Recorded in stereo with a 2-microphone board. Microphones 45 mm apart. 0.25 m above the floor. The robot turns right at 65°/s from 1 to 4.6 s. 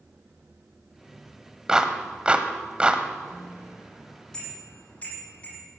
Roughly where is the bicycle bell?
Right.